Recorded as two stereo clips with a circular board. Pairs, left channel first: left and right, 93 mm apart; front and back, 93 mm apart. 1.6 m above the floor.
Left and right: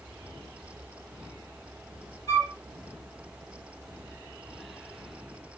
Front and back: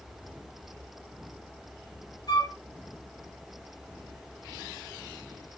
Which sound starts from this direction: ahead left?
A flute, at 2.3 s.